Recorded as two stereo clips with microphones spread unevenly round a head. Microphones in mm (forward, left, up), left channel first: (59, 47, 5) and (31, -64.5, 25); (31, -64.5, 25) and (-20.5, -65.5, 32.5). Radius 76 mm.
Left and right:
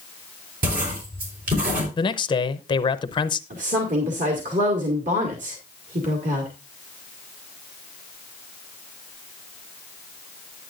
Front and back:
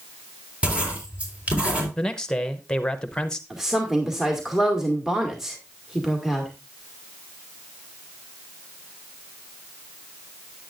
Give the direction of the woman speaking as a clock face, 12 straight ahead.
3 o'clock.